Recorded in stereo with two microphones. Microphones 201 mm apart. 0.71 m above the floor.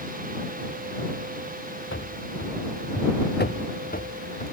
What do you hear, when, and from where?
1.9 s running footsteps: 80° left; by 4.5 s 40° left (ahead or behind)